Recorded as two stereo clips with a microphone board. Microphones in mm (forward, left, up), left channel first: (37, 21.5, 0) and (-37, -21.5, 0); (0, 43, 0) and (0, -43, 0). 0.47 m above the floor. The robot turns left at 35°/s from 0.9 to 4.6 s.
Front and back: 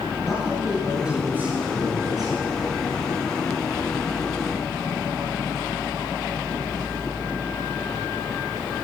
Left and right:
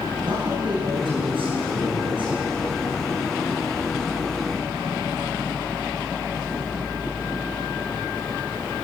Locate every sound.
0.2 s a man speaking: 65° right, 9 m; by 2.6 s 125° right, 9 m